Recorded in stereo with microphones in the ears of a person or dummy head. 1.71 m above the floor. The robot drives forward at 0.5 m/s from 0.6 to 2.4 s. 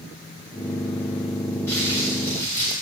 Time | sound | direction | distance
1.7 | crumpling | 15° left (ahead or behind) | 7 m